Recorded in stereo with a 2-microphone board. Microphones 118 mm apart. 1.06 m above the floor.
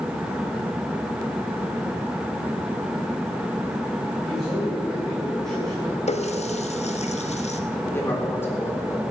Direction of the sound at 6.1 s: 70° left (ahead or behind).